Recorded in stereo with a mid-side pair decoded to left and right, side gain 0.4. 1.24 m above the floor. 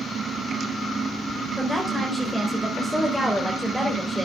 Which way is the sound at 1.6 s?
Straight ahead.